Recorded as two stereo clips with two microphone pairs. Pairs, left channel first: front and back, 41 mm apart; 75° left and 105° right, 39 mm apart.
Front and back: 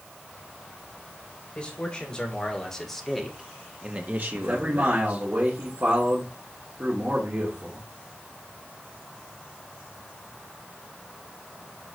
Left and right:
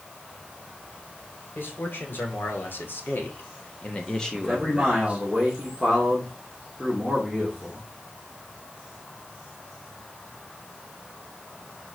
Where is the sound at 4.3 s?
160° left, 3 m.